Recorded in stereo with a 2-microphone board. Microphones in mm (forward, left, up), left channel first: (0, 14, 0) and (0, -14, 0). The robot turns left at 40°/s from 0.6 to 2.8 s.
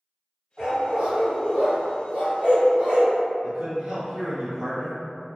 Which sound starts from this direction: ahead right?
A dog barking, at 0.6 s.